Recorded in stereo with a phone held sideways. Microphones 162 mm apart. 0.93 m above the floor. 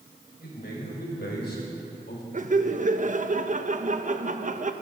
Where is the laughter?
50° right (ahead or behind), 0.8 m.